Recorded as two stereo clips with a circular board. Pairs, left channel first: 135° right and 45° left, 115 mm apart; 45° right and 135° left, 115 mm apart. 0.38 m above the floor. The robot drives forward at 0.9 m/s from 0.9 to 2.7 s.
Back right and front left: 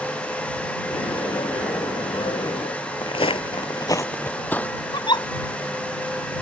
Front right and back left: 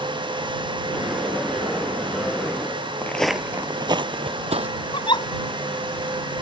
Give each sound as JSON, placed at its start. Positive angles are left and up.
{"t": 3.0, "sound": "footsteps", "azimuth_deg": -115}
{"t": 4.9, "sound": "a giggle", "azimuth_deg": -90}